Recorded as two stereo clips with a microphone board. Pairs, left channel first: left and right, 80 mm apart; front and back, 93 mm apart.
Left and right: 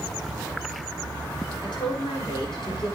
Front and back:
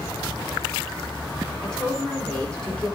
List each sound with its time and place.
1.6 s a woman speaking: 80° left, 5 m